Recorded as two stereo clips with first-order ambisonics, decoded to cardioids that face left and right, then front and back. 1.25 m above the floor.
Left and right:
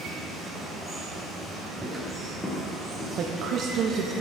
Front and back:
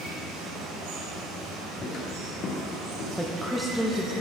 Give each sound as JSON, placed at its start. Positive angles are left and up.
{"t": 0.0, "sound": "running water", "azimuth_deg": -175, "distance_m": 2.0}
{"t": 1.8, "sound": "footsteps", "azimuth_deg": -45, "distance_m": 1.3}
{"t": 3.2, "sound": "a woman speaking", "azimuth_deg": -90, "distance_m": 0.6}